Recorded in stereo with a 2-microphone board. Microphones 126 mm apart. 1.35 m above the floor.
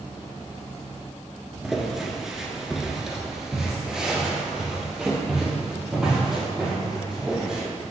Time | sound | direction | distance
1.6 | footsteps | centre (ahead or behind) | 1.3 m